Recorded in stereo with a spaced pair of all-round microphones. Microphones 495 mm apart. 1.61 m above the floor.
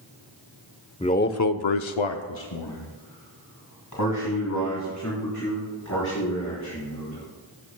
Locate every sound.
1.0 s a man speaking: 10° left (ahead or behind), 0.8 m; by 7.2 s 35° left (ahead or behind), 5 m